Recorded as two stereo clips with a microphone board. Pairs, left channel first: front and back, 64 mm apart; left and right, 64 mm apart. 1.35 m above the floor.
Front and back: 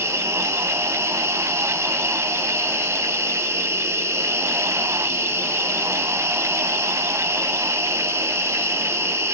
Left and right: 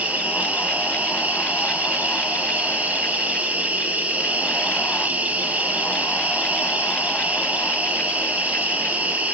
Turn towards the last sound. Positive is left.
turn(degrees=-155)